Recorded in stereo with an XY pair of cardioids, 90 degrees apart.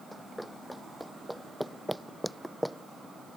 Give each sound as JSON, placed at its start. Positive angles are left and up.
{"t": 0.1, "sound": "running footsteps", "azimuth_deg": -5}